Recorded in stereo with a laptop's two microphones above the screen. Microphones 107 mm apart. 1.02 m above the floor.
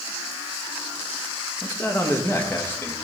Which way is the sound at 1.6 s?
20° left (ahead or behind).